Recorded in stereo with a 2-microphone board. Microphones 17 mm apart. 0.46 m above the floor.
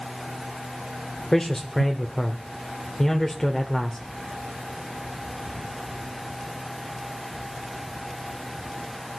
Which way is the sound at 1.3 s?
20° left (ahead or behind).